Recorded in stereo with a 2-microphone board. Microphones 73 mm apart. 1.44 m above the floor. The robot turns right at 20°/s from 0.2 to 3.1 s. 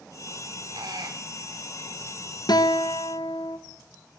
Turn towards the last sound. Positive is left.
turn(degrees=75)  # may be behind; listen again after turning